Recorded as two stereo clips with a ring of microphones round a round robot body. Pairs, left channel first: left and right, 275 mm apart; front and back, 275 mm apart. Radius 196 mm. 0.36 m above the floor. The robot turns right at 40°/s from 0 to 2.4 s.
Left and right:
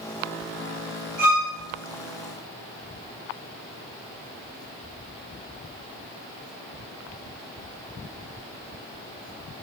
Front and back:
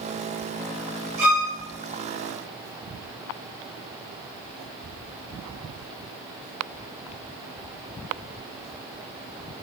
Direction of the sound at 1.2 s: 160° right.